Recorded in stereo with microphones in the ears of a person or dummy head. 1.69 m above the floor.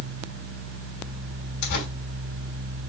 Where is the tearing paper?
50° left (ahead or behind), 2.5 m.